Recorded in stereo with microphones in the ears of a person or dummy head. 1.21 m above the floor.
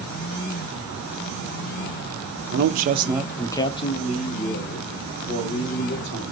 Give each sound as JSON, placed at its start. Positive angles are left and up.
{"t": 2.5, "sound": "a man speaking", "side_deg": -60, "distance_m": 0.7}